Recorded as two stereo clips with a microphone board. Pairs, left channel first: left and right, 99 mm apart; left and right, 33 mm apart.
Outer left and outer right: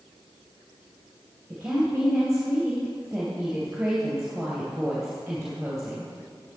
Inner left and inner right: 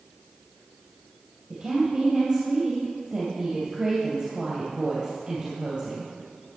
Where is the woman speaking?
10° right (ahead or behind), 2.5 m.